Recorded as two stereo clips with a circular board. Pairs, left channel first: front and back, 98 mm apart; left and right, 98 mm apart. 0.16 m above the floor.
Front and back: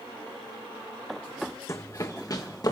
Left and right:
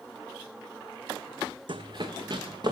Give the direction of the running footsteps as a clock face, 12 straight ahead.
2 o'clock.